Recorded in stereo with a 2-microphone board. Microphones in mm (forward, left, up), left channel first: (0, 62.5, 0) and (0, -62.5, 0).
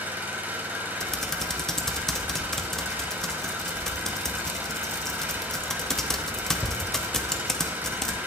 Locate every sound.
0.0 s an engine running: 15° right (ahead or behind), 1.1 m
1.0 s typing on a keyboard: 5° left (ahead or behind), 0.5 m